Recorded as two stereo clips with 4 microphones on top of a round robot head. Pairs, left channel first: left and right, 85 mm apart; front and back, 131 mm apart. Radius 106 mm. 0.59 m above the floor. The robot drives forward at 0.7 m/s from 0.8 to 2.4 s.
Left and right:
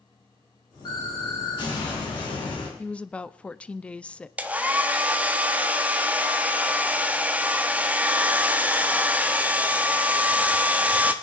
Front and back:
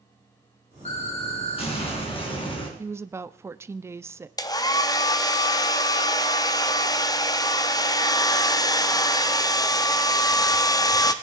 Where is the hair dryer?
30° right, 1.0 m.